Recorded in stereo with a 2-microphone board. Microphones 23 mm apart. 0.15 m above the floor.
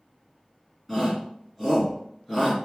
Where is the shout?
Centre (ahead or behind), 1.5 m.